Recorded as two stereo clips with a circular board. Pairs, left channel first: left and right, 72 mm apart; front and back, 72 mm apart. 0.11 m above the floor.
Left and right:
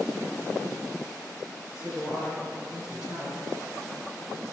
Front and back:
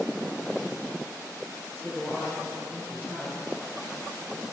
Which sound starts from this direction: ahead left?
A woman speaking, at 1.7 s.